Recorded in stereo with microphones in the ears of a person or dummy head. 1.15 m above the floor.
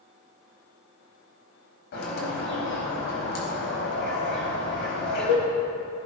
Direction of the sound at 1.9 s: 60° left (ahead or behind).